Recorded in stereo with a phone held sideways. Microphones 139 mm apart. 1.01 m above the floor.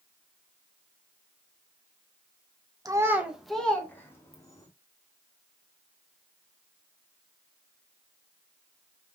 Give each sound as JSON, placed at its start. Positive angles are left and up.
{"t": 2.9, "sound": "a child speaking", "side_deg": -25, "distance_m": 0.9}